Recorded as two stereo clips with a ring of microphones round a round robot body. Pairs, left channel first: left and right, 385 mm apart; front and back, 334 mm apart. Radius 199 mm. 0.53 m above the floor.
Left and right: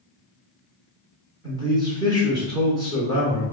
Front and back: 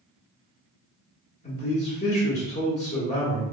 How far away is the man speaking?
About 1.0 m.